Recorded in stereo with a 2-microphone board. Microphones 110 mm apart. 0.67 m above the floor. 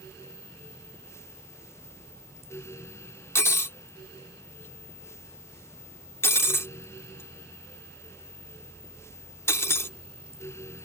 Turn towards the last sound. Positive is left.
turn(degrees=20)  # may be behind; listen again after turning